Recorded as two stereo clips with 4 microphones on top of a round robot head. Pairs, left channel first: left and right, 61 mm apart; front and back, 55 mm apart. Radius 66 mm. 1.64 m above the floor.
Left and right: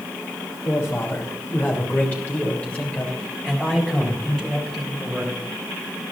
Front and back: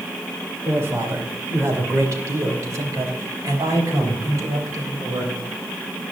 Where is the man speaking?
140° left, 3 m; by 5.3 s straight behind, 4.5 m.